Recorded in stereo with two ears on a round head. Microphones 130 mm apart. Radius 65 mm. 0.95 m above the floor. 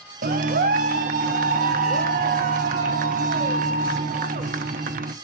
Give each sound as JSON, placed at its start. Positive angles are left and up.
{"t": 0.2, "sound": "a clap", "side_deg": -60, "distance_m": 0.7}